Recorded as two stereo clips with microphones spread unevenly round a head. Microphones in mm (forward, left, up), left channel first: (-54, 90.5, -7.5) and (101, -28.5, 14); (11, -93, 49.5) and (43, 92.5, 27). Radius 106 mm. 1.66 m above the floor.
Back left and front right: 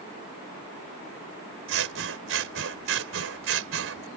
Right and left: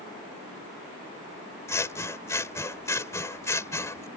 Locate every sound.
1.7 s scissors: 25° right